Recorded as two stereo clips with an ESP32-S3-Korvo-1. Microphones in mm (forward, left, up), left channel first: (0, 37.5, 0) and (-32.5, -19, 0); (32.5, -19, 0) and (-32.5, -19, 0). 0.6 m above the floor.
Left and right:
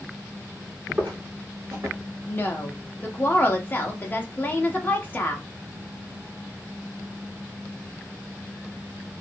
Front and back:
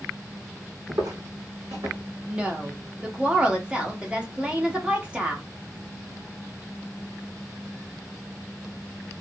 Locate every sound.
0.9 s footsteps: 175° left, 1.5 m; by 2.0 s 160° right, 1.6 m
2.3 s a woman speaking: 115° left, 0.8 m